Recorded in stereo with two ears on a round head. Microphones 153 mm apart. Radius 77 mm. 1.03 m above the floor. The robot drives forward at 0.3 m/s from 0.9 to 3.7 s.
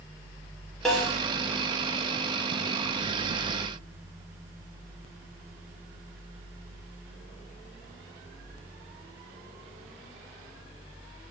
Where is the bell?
I don't hear a bell.